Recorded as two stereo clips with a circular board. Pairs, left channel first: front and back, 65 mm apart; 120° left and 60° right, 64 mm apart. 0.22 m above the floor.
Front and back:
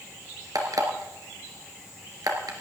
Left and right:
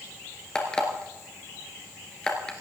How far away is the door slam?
I don't hear a door slam.